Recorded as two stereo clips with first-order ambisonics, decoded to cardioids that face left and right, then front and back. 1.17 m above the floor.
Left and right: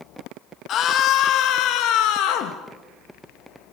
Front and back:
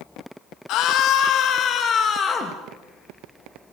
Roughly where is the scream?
Ahead left.